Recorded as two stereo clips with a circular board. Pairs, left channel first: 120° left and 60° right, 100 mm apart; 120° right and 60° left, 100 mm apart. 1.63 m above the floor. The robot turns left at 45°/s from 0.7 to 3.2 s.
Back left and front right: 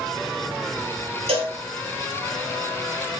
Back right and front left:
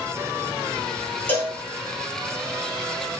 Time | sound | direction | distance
1.3 | a cowbell | 50° right | 3.5 m